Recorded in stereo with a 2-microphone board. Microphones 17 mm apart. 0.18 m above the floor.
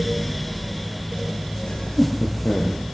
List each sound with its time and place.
1.7 s laughter: 60° left (ahead or behind), 5 m; by 2.8 s 65° left (ahead or behind), 5.5 m